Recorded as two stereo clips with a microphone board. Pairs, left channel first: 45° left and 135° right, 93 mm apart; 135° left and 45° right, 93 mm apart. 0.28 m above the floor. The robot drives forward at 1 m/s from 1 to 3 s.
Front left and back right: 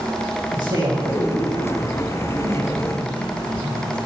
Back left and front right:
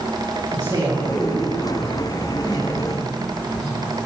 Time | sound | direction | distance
0.5 | a man speaking | 90° right | 5 m